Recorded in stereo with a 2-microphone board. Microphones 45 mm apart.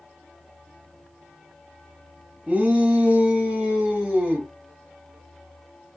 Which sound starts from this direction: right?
A shout, at 2.5 s.